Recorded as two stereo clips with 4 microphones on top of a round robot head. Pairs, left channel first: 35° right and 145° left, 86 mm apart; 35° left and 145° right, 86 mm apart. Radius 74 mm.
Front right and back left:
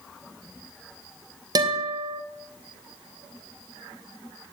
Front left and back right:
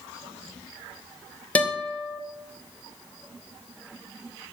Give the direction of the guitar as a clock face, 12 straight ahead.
8 o'clock.